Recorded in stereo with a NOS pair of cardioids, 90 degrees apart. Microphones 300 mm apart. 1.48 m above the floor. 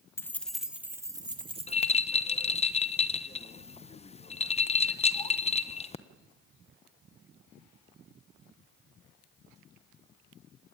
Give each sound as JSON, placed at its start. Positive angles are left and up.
{"t": 0.2, "sound": "keys jangling", "azimuth_deg": 10, "distance_m": 1.8}
{"t": 1.7, "sound": "a rattle", "azimuth_deg": 20, "distance_m": 1.2}